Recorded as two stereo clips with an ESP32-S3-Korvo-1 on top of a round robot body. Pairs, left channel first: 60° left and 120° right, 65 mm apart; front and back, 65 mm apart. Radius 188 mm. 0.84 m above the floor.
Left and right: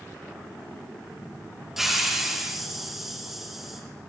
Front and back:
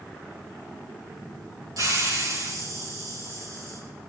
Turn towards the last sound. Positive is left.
turn(degrees=155)